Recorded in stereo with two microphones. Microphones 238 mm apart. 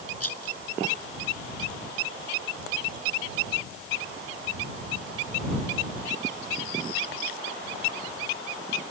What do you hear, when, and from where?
0.2 s a rattle: 85° left